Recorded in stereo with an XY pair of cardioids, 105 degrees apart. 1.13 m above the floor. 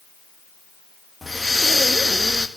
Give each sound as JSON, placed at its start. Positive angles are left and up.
{"t": 1.2, "sound": "breathing", "azimuth_deg": 5, "distance_m": 1.6}